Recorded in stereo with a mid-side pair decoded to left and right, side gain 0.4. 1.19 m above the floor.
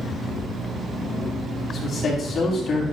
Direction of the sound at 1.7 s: 70° left.